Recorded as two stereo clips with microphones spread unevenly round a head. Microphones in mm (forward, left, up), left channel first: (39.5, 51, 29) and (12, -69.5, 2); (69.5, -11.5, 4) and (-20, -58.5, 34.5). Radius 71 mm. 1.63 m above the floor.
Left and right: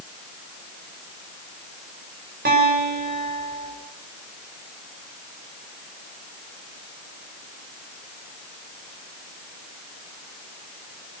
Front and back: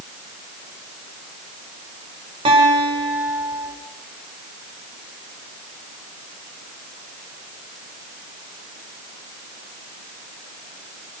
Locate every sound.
2.5 s a guitar: 120° right, 8 m